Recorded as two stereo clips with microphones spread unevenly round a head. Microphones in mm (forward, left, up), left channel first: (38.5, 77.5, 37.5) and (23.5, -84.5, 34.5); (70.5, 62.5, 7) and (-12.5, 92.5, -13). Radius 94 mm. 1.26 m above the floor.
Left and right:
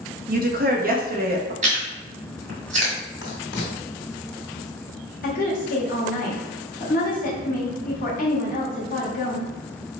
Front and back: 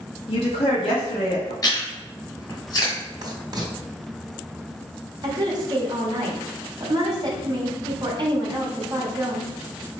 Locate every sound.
0.3 s a woman speaking: 60° right, 0.9 m
1.6 s chewing: 60° right, 1.8 m
3.2 s writing: 115° left, 1.6 m
5.2 s a woman speaking: 125° left, 1.3 m